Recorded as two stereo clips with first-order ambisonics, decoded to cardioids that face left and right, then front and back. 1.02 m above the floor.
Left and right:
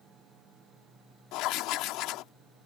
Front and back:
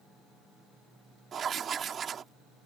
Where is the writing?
120° left.